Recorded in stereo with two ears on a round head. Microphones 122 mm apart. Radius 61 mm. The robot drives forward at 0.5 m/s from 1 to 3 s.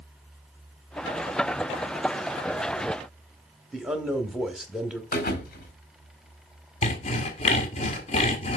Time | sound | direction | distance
3.7 | a man speaking | 5° right (ahead or behind) | 1.0 m
5.1 | a thud | 75° left (ahead or behind) | 1.5 m
6.8 | sawing | 50° left (ahead or behind) | 1.3 m